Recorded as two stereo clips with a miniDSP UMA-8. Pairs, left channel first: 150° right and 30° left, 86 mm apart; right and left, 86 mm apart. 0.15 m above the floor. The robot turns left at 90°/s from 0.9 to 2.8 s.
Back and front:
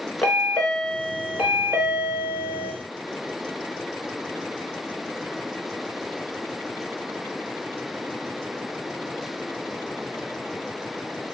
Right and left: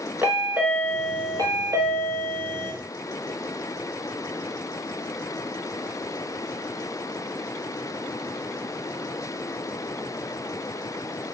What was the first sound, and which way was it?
A chime, 140° left.